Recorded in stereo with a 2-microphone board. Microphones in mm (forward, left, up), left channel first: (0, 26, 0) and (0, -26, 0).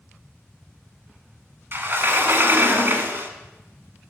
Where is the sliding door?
40° right (ahead or behind), 0.9 m.